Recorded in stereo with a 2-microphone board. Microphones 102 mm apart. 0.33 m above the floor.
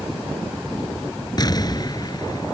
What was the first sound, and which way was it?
An explosion, 40° left (ahead or behind).